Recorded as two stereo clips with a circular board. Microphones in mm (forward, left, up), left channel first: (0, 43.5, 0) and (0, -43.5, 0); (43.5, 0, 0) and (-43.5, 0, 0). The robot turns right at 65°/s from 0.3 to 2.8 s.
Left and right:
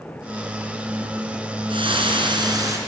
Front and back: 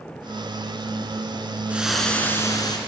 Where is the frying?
105° right, 3 m; by 2.8 s 35° right, 3 m.